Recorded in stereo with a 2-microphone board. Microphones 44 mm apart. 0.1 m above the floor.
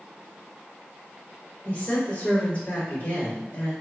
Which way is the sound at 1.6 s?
40° left (ahead or behind).